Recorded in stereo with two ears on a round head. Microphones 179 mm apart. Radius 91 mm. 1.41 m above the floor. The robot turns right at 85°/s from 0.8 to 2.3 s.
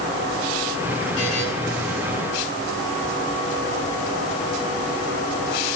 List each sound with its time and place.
1.2 s a buzzer: 60° left (ahead or behind), 10 m; by 1.4 s 85° left, 10 m